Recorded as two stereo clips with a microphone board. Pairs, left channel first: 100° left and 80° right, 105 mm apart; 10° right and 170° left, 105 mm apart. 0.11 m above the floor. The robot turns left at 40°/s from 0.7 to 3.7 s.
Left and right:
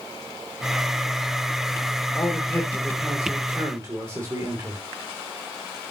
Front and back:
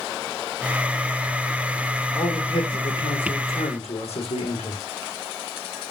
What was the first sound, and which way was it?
A man speaking, 40° left.